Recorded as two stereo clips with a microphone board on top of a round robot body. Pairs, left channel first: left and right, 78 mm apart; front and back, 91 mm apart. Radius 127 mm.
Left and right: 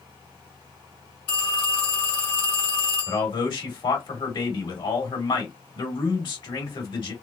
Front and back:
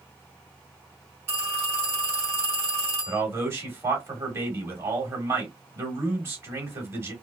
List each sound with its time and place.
1.3 s a phone ringing: 115° left, 1.5 m
3.1 s a man speaking: 115° left, 1.8 m